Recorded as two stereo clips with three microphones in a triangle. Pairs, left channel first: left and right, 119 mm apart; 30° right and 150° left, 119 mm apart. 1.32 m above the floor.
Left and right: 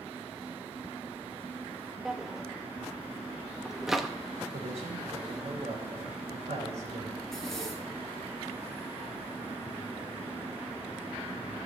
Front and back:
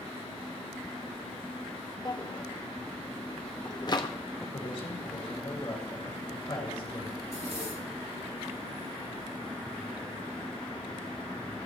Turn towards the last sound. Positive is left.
turn(degrees=175)